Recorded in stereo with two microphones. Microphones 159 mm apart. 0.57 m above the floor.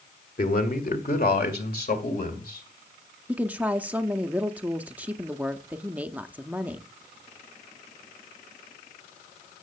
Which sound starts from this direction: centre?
A woman speaking, at 3.3 s.